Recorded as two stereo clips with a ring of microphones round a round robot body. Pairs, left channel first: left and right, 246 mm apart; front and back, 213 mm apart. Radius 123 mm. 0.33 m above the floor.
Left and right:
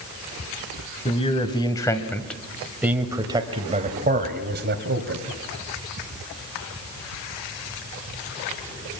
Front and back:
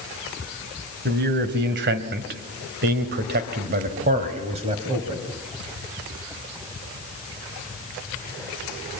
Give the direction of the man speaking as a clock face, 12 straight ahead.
7 o'clock.